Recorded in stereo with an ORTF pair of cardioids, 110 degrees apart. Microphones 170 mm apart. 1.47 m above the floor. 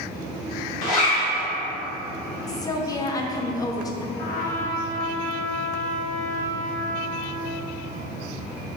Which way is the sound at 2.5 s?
20° left.